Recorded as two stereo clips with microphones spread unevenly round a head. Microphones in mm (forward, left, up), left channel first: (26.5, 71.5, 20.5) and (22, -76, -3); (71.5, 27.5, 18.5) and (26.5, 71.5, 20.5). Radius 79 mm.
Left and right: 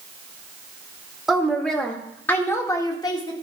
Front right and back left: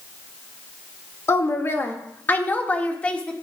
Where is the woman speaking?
5° right, 2 m; by 3.3 s 30° left, 1.9 m.